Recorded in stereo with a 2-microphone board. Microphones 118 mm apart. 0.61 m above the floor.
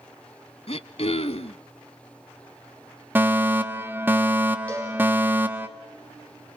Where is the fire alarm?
15° right (ahead or behind), 1.6 m.